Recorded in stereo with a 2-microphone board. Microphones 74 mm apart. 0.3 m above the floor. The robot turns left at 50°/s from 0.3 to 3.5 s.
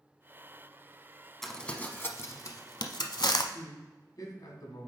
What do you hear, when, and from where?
1.4 s crumpling: 5° left (ahead or behind), 0.7 m; by 3.4 s 70° left (ahead or behind), 0.7 m
3.5 s a man speaking: 55° left (ahead or behind), 1.9 m